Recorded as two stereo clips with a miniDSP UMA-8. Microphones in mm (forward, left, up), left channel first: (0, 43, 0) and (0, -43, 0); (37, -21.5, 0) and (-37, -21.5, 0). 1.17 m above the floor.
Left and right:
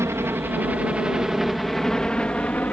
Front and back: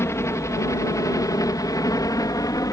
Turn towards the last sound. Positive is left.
turn(degrees=25)